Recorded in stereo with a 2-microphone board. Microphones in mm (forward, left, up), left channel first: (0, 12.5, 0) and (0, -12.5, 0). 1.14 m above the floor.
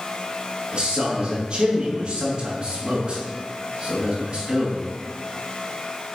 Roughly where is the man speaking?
Right.